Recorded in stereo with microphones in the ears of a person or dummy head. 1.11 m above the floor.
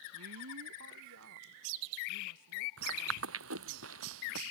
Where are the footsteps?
75° right (ahead or behind).